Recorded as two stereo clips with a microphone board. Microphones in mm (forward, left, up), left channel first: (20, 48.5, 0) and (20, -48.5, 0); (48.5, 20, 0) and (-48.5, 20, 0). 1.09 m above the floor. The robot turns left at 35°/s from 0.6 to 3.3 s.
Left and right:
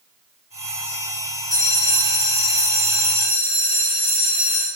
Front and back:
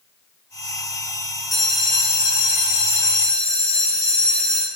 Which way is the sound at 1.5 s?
85° right.